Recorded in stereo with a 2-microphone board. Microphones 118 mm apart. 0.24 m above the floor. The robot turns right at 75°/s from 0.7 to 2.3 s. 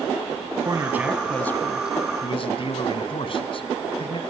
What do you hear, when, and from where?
0.6 s a man speaking: 40° right, 1.8 m; by 4.2 s 80° left, 1.8 m